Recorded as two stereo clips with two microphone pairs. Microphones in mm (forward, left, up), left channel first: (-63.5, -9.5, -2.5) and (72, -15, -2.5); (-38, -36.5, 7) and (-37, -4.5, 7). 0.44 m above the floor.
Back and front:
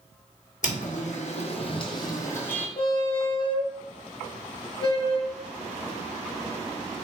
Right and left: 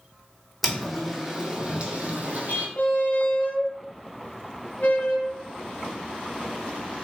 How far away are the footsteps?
About 1.1 m.